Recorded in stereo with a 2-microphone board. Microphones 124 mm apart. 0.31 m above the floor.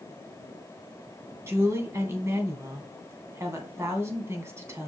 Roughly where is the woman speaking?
Right.